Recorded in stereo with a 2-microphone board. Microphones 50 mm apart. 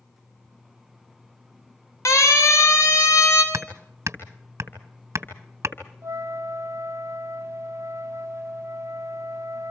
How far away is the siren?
About 5 m.